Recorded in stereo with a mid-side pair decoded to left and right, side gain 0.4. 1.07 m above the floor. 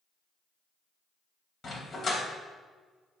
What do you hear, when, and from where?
1.6 s a dog barking: 50° left, 2.5 m